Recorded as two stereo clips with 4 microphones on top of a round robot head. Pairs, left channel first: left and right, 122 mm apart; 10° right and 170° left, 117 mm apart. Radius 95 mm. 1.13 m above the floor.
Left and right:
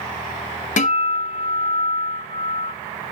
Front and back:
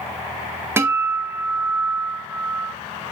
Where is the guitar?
105° left, 1.7 m.